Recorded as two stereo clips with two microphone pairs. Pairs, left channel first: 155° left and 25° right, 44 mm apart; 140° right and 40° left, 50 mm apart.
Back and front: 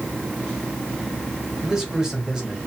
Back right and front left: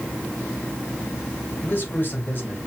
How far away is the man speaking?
About 2 m.